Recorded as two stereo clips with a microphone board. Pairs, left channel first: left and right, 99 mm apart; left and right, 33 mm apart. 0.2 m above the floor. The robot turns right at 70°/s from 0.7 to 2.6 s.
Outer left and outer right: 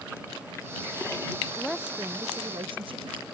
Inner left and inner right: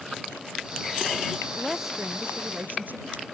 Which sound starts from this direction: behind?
A woman speaking, at 1.6 s.